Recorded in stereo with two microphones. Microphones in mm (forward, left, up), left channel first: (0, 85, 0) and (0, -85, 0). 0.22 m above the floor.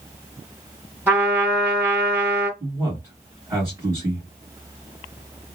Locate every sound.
1.1 s a trumpet: 10° right (ahead or behind), 1.8 m
2.6 s a man speaking: 15° right (ahead or behind), 1.6 m